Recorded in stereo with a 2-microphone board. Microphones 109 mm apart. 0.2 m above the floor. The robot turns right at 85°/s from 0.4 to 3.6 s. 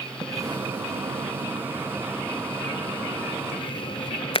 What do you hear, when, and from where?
0.2 s a splash: 30° right (ahead or behind), 0.5 m; by 4.4 s 55° left (ahead or behind), 0.5 m